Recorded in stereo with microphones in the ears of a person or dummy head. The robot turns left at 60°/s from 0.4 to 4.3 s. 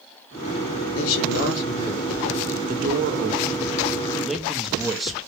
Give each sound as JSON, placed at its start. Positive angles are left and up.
{"t": 0.9, "sound": "a man speaking", "azimuth_deg": 85, "distance_m": 0.8}
{"t": 2.7, "sound": "a man speaking", "azimuth_deg": -85, "distance_m": 0.6}